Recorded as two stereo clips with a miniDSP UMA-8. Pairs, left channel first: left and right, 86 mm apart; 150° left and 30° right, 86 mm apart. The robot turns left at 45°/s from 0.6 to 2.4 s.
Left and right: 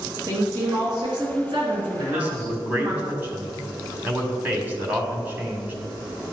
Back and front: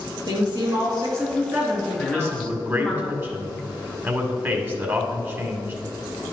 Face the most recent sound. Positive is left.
turn(degrees=-50)